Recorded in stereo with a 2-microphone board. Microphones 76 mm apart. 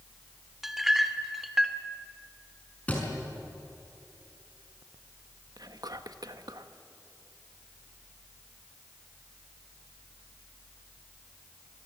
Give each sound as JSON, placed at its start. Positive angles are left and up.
{"t": 0.6, "sound": "a clink", "side_deg": -5, "distance_m": 1.2}
{"t": 2.9, "sound": "a thud", "side_deg": 20, "distance_m": 5.5}
{"t": 5.6, "sound": "whispering", "side_deg": -60, "distance_m": 1.3}